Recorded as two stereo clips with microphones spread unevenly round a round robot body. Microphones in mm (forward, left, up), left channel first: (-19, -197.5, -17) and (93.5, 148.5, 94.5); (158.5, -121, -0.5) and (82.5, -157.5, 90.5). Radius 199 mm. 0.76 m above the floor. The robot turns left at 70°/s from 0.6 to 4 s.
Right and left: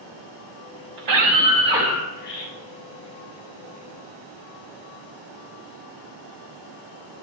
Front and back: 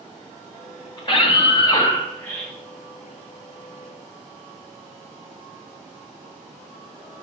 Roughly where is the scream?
Ahead left.